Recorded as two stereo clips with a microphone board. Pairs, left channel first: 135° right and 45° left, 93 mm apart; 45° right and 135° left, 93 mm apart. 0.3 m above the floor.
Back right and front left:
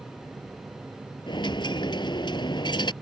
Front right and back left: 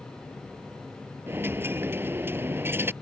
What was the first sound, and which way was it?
A dropped coin, 160° right.